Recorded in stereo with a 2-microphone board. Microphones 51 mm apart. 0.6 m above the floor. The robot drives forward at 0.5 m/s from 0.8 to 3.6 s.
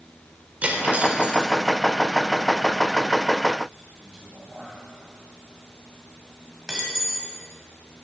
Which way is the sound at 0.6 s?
30° right (ahead or behind).